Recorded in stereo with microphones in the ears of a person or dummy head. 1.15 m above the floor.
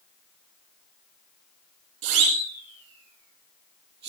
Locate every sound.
2.0 s a siren: 70° right (ahead or behind), 9 m; by 4.1 s 65° right (ahead or behind), 8 m